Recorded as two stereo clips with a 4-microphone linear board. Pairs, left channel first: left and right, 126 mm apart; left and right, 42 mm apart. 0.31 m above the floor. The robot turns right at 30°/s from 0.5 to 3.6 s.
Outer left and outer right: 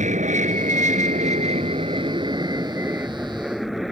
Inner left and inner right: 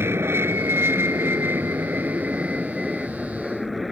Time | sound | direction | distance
0.0 | an aircraft | 95° right | ?